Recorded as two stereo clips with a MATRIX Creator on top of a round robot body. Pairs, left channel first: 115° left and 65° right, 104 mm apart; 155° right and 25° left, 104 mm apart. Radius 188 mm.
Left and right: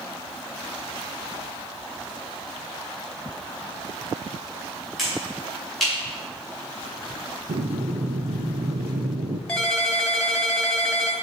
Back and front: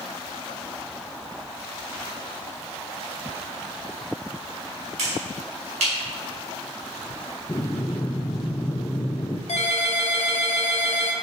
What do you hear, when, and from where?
5.0 s a finger snap: 25° left, 6 m
7.5 s breathing: 90° right, 0.6 m
9.5 s a ringtone: 165° right, 1.9 m